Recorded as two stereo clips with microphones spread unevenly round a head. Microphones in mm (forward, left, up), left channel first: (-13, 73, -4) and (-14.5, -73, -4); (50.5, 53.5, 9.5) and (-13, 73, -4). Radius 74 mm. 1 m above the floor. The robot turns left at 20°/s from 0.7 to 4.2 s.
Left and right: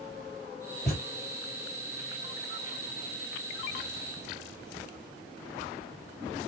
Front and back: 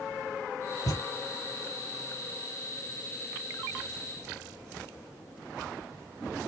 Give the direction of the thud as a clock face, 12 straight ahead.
12 o'clock.